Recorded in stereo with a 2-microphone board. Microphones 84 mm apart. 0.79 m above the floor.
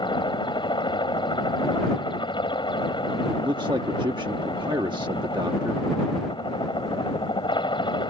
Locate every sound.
0.0 s a helicopter: 75° left (ahead or behind)
3.3 s a man speaking: 65° right (ahead or behind)